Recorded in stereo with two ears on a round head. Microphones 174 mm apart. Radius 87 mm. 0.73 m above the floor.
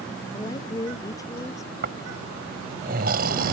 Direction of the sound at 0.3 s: 20° left (ahead or behind).